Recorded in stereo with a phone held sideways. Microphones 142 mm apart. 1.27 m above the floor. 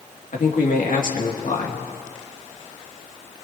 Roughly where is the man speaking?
Left.